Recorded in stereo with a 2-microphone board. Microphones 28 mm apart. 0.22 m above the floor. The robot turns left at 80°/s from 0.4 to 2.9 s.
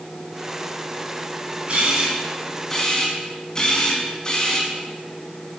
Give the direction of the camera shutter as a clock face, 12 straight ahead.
4 o'clock.